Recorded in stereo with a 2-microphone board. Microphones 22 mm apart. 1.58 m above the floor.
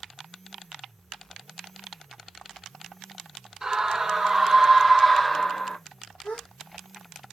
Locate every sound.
3.6 s a scream: 25° right (ahead or behind), 1.9 m; by 5.8 s 30° left (ahead or behind), 0.8 m
6.2 s a gasp: 80° left, 3.5 m